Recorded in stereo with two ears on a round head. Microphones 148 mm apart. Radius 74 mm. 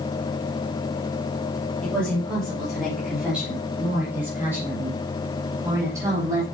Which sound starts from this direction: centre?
A woman speaking, at 1.8 s.